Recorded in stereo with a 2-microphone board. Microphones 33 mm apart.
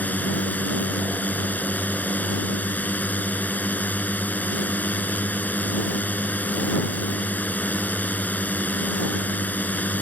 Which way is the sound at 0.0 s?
55° left (ahead or behind).